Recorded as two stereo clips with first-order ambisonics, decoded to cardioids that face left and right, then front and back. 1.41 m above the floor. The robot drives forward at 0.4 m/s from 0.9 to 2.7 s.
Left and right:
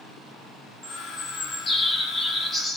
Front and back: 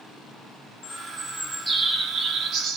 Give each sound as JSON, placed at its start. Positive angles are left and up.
{"t": 0.8, "sound": "a bird", "azimuth_deg": 30, "distance_m": 0.7}